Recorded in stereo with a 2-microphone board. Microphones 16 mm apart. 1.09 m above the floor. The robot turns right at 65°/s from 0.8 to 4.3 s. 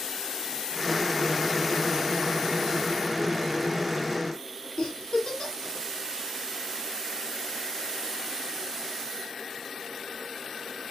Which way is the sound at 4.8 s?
70° left (ahead or behind).